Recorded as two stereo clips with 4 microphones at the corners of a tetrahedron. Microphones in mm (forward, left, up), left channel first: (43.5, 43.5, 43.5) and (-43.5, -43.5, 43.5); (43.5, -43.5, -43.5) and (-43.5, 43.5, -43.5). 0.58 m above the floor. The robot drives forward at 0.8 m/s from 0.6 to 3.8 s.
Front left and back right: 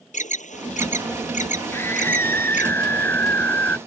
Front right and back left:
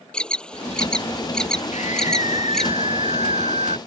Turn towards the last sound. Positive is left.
turn(degrees=-30)